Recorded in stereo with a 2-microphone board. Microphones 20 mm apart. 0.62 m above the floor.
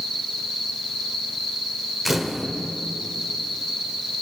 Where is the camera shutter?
15° right (ahead or behind), 1.2 m.